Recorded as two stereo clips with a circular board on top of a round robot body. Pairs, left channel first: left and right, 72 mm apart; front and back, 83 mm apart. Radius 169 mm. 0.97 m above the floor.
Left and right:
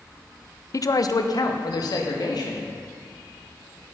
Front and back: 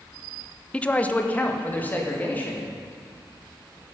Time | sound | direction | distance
0.7 | a man speaking | 75° left | 0.8 m